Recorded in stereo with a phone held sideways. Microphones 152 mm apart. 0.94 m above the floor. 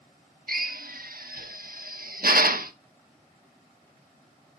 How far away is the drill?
About 1.1 m.